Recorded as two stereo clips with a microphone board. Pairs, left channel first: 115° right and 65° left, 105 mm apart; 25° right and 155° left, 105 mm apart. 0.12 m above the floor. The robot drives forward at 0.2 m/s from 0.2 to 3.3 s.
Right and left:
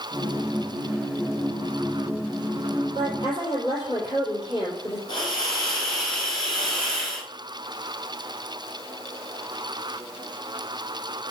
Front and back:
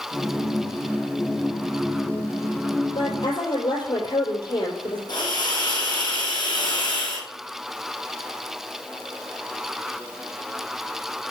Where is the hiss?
70° right, 3.5 m.